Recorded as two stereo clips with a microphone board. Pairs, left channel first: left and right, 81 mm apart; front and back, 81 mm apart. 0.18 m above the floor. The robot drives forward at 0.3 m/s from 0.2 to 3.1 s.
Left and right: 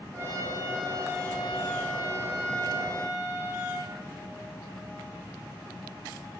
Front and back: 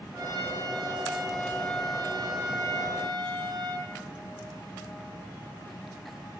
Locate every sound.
0.1 s a trumpet: 140° right, 5 m; by 3.9 s 145° right, 6 m